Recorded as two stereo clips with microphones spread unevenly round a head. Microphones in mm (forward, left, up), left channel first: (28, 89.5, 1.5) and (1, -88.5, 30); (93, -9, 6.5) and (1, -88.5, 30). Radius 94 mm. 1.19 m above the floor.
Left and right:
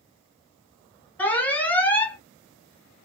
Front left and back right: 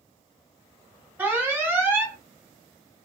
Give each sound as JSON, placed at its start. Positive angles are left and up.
{"t": 1.2, "sound": "an alarm", "azimuth_deg": 140, "distance_m": 1.0}